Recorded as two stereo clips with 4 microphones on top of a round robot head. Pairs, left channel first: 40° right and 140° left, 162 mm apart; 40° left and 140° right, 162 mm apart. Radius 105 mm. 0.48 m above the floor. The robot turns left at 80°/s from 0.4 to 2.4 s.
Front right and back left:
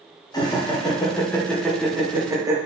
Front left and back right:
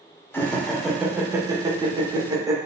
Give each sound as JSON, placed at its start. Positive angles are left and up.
{"t": 0.3, "sound": "laughter", "azimuth_deg": -20, "distance_m": 0.8}